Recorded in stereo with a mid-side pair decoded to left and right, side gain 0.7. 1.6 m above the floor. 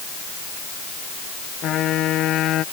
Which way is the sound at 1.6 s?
45° left.